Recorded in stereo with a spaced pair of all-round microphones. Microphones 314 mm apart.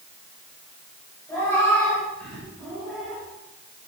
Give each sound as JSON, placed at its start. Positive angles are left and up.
{"t": 1.3, "sound": "a cat meowing", "side_deg": 10, "distance_m": 5.0}